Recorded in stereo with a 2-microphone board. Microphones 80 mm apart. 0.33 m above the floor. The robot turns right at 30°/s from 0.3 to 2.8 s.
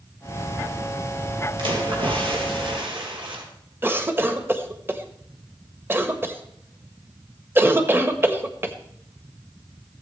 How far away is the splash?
About 4 m.